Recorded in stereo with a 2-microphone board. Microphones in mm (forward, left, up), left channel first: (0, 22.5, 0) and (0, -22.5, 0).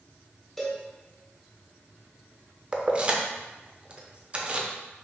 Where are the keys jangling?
25° right (ahead or behind), 0.5 m.